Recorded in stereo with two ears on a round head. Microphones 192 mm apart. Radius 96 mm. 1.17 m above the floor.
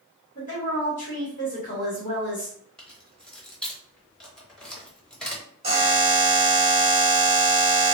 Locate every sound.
0.3 s a woman speaking: 40° left (ahead or behind), 1.0 m
2.8 s keys jangling: 5° left (ahead or behind), 0.6 m
5.6 s a buzzer: 30° right (ahead or behind), 1.0 m